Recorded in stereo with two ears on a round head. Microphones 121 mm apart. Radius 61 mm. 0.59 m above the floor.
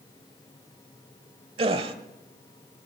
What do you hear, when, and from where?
1.6 s a gasp: 45° right (ahead or behind), 1.1 m